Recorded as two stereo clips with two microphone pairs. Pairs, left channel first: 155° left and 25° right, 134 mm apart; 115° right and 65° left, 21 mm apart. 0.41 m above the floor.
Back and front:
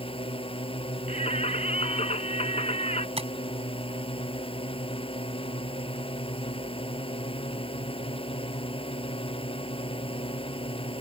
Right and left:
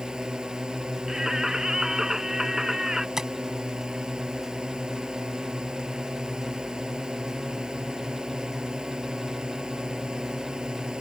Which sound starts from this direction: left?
A drone, at 0.0 s.